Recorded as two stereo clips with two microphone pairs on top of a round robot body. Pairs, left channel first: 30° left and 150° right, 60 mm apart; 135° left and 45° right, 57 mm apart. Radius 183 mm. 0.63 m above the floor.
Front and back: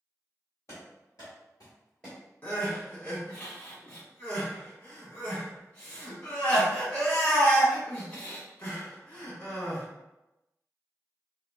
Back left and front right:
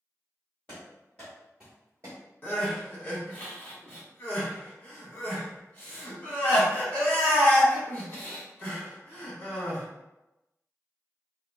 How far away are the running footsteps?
About 1.1 m.